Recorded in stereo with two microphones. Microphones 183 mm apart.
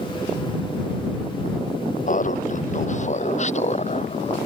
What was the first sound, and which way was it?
Laughter, 45° left (ahead or behind).